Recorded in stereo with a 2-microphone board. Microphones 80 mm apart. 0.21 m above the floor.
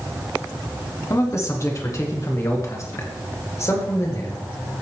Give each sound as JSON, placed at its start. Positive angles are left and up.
{"t": 1.1, "sound": "a man speaking", "side_deg": 35, "distance_m": 1.8}